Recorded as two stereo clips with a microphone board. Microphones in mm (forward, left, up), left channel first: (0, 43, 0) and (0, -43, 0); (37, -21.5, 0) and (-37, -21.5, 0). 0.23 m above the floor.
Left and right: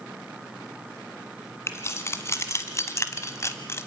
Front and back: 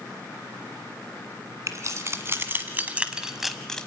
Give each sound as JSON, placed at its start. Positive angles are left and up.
{"t": 1.7, "sound": "keys jangling", "azimuth_deg": 145, "distance_m": 1.8}